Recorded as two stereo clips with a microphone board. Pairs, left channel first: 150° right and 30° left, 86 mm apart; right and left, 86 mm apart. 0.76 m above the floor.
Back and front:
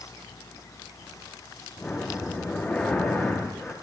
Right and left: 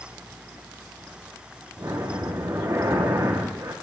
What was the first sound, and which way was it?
Breathing, 135° left.